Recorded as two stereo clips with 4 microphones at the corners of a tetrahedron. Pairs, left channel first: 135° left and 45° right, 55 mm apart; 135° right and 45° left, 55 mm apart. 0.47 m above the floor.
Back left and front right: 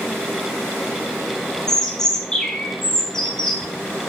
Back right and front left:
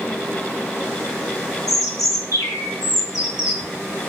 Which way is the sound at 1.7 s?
145° right.